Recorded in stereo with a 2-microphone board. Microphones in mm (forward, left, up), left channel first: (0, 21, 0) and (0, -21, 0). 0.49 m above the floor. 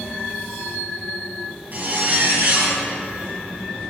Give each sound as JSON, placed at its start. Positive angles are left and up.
{"t": 1.7, "sound": "a zipper", "side_deg": -45, "distance_m": 1.9}